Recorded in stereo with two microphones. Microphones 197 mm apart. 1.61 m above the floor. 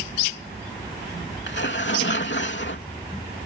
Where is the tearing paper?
65° left (ahead or behind).